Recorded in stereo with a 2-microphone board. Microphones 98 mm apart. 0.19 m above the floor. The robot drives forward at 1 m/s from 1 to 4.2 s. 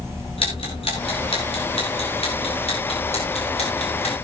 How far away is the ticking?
About 7.5 m.